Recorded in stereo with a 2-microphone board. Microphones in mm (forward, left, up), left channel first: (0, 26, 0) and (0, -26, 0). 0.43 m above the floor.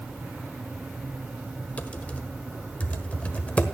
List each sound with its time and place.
1.8 s typing on a keyboard: 25° left (ahead or behind), 1.4 m